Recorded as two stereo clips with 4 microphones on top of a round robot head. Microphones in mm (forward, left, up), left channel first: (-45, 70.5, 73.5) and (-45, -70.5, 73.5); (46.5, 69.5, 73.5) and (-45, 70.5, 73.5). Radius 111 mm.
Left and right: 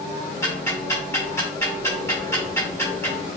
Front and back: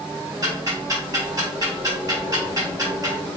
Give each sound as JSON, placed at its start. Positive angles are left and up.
{"t": 0.4, "sound": "ticking", "azimuth_deg": 155, "distance_m": 1.5}